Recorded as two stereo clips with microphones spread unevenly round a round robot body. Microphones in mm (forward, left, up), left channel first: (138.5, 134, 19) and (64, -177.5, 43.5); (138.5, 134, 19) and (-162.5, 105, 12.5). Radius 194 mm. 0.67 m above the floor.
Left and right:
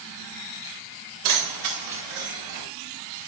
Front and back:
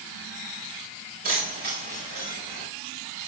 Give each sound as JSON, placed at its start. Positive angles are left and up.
{"t": 1.2, "sound": "keys jangling", "azimuth_deg": -105, "distance_m": 6.0}